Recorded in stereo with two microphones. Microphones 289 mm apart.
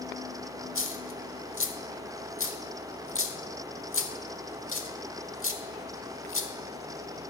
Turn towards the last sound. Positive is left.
turn(degrees=45)  # may be behind; listen again after turning